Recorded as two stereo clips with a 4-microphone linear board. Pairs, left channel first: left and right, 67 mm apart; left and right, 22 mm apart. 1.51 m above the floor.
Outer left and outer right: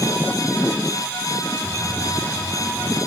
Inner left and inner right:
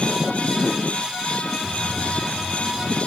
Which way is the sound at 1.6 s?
15° left (ahead or behind).